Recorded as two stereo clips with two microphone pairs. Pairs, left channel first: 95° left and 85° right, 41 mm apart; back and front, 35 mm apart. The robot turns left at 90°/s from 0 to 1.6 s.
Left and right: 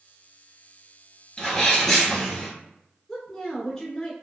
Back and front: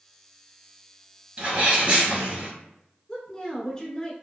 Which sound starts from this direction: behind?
A woman speaking, at 3.1 s.